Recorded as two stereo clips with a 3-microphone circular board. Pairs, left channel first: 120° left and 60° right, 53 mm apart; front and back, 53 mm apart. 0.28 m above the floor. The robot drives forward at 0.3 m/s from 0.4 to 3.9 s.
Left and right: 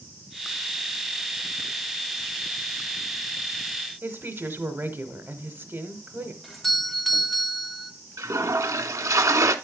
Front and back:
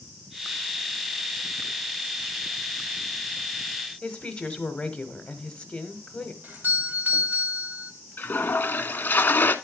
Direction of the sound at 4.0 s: 65° right.